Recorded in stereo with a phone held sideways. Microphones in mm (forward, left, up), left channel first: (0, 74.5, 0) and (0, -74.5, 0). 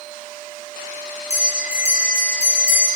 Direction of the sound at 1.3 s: 20° right (ahead or behind).